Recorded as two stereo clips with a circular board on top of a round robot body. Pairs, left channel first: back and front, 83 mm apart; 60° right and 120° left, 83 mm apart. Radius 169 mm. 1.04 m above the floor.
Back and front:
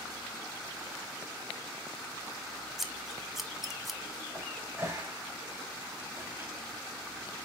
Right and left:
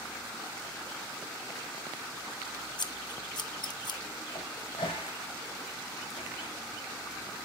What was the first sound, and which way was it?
Scissors, 90° right.